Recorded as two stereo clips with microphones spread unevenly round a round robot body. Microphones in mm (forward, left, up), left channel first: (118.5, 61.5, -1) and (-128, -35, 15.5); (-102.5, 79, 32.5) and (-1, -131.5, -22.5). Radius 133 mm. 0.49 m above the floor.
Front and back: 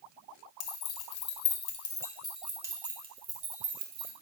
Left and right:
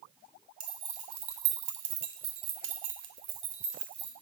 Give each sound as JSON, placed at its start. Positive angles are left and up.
{"t": 0.6, "sound": "keys jangling", "azimuth_deg": 0, "distance_m": 1.0}